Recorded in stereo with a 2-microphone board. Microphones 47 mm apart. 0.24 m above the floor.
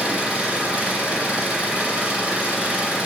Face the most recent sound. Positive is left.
turn(degrees=-25)  # may be behind; listen again after turning